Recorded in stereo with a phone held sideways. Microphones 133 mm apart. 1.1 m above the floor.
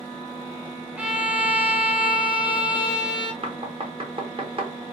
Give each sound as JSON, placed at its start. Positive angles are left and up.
{"t": 1.0, "sound": "a violin", "side_deg": -10, "distance_m": 0.5}
{"t": 3.4, "sound": "knocking", "side_deg": -45, "distance_m": 0.7}